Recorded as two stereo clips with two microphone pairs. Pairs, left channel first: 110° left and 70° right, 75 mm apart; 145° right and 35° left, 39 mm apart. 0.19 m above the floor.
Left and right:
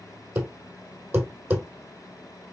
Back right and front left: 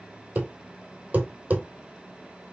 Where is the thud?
5° right, 1.7 m.